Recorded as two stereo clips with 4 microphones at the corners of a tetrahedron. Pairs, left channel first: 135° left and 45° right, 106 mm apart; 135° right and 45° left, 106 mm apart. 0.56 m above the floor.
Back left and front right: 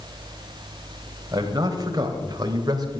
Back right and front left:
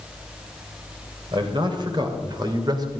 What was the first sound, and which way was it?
A man speaking, 5° left.